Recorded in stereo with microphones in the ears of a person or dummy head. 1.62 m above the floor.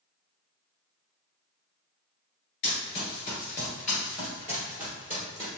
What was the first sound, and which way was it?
Running footsteps, 30° left (ahead or behind).